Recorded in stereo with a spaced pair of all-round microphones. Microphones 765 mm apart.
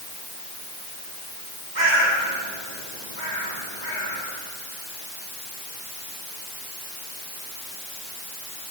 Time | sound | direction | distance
1.8 | a bird | 65° right (ahead or behind) | 7.5 m